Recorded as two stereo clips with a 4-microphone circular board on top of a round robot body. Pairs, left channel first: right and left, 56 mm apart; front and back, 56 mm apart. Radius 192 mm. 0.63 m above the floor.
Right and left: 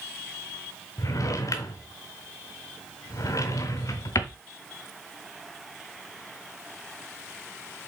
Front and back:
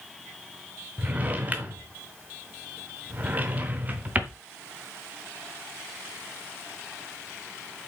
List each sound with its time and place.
1.0 s a drawer: 120° right, 0.7 m